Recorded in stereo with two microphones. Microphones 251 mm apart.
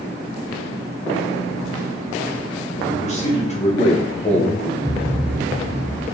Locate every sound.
2.8 s a man speaking: 25° left (ahead or behind), 1.8 m
4.8 s a thud: 25° right (ahead or behind), 1.1 m